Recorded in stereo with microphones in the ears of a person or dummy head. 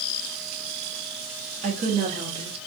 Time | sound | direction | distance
1.6 | a woman speaking | 40° right (ahead or behind) | 1.1 m